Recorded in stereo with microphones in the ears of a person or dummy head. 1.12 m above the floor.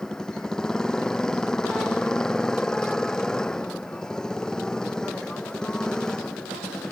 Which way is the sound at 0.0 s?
Centre (ahead or behind).